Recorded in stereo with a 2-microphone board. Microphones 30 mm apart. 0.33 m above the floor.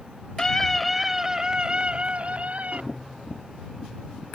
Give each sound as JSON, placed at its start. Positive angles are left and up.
{"t": 0.4, "sound": "a scream", "side_deg": 20}
{"t": 2.9, "sound": "tapping", "side_deg": 50}